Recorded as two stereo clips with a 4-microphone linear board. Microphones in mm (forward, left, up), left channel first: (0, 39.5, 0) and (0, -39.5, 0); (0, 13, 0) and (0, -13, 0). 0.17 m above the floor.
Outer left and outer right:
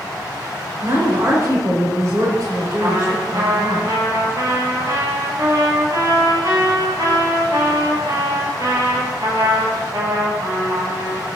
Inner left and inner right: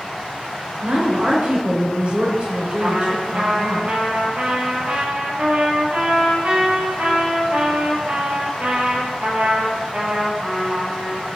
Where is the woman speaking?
50° right (ahead or behind), 2 m.